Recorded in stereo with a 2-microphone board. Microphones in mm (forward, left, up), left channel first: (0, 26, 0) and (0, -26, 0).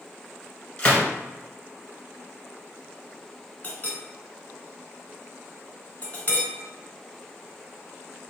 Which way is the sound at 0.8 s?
15° left (ahead or behind).